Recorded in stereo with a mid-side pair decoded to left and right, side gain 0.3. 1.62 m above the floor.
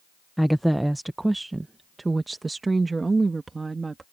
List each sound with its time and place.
0.4 s a woman speaking: straight ahead; by 4.0 s 40° right